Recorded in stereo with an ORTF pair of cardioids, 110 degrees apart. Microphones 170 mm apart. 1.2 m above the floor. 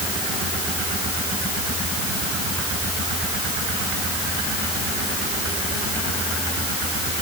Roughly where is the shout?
No shout in this recording.